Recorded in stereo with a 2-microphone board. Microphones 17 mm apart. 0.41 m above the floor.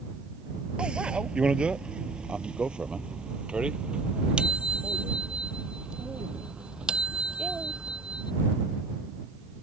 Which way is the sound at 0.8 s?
80° right.